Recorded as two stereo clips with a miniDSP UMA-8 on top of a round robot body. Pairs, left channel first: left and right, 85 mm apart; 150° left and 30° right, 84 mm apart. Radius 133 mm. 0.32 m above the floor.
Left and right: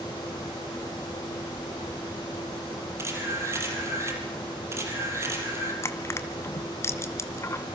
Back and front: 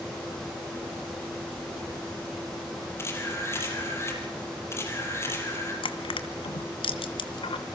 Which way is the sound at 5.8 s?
150° left.